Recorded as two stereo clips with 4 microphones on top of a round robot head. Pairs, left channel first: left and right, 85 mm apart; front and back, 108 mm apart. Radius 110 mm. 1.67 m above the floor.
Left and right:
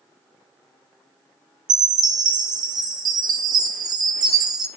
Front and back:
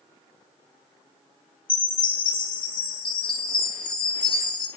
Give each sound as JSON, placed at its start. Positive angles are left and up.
{"t": 1.7, "sound": "a chime", "azimuth_deg": -60, "distance_m": 1.4}